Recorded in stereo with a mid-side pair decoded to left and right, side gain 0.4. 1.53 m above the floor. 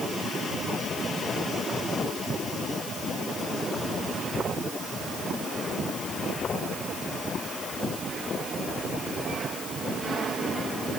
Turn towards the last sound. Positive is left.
No sound to turn to.